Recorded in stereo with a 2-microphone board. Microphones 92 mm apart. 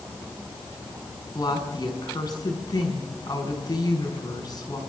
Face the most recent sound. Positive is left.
turn(degrees=45)  # may be behind; listen again after turning